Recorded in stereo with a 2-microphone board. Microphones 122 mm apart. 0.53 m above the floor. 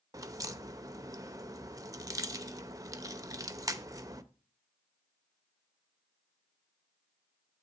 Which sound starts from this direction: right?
A crack, at 0.1 s.